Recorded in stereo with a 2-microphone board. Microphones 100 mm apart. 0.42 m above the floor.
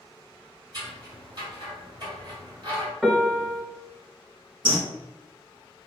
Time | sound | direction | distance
0.7 | scissors | 45° right (ahead or behind) | 1.9 m
3.0 | a piano | 5° right (ahead or behind) | 0.6 m
4.7 | a bird | 60° right (ahead or behind) | 0.6 m